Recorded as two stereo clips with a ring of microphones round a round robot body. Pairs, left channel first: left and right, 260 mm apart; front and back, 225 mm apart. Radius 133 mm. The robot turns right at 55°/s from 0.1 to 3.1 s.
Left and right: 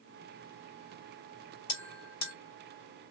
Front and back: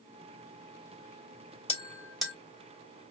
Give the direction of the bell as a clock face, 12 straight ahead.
10 o'clock.